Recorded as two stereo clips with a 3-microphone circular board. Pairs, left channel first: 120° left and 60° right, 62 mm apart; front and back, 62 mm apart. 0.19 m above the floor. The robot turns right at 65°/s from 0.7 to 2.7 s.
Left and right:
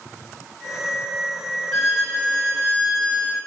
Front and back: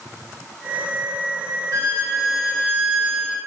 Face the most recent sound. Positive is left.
turn(degrees=-100)